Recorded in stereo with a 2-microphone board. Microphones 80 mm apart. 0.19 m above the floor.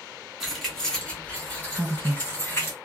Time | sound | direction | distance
0.4 | keys jangling | centre (ahead or behind) | 1.0 m
1.7 | a woman speaking | 20° right (ahead or behind) | 1.4 m